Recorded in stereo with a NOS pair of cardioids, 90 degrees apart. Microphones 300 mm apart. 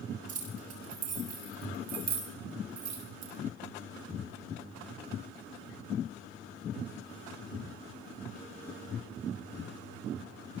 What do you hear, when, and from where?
0.3 s keys jangling: 55° right, 7.5 m; by 3.3 s 70° right, 6 m